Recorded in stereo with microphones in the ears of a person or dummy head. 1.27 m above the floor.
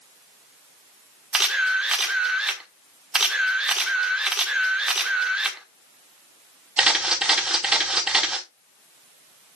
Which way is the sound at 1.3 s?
10° right (ahead or behind).